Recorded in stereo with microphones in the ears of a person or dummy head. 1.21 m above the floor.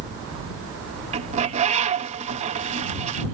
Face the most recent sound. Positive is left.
turn(degrees=-30)  # may be behind; listen again after turning